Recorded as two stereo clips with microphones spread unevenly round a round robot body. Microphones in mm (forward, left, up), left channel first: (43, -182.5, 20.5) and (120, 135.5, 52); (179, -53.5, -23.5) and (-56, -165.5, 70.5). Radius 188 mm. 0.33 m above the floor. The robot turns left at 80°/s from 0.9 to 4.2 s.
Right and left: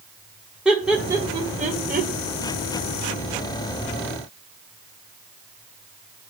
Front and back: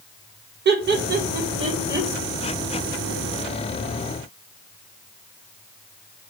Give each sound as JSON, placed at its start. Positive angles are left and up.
{"t": 0.7, "sound": "laughter", "azimuth_deg": 175, "distance_m": 1.5}